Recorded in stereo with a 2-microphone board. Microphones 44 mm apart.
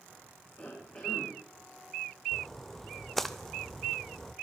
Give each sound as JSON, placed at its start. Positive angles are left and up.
{"t": 0.6, "sound": "a cough", "side_deg": 35, "distance_m": 3.0}
{"t": 2.3, "sound": "a splash", "side_deg": 5, "distance_m": 0.6}